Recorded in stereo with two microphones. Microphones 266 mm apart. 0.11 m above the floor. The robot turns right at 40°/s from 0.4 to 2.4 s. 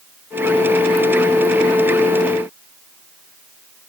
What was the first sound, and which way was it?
Only background noise.